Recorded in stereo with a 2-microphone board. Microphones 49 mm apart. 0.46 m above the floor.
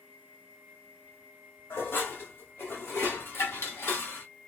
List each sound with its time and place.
1.7 s dishes clattering: 60° left (ahead or behind), 1.5 m